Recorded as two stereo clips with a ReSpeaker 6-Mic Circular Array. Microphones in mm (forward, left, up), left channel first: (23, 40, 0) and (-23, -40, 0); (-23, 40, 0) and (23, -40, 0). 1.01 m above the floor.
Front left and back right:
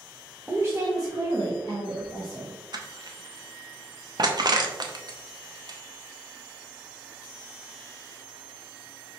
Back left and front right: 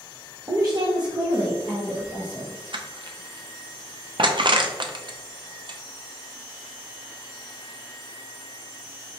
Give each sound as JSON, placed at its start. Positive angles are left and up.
{"t": 0.5, "sound": "a woman speaking", "azimuth_deg": -50, "distance_m": 0.7}
{"t": 2.7, "sound": "crushing", "azimuth_deg": -85, "distance_m": 0.5}